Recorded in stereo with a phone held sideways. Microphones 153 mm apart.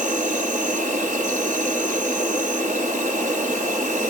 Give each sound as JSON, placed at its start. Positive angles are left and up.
{"t": 0.0, "sound": "an insect", "side_deg": -55, "distance_m": 1.7}